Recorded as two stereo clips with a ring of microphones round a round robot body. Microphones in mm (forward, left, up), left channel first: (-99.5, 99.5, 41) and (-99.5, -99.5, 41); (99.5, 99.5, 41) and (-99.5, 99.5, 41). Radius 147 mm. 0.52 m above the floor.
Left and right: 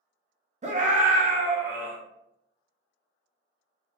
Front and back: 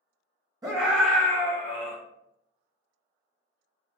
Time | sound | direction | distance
0.6 | a scream | 120° right | 1.0 m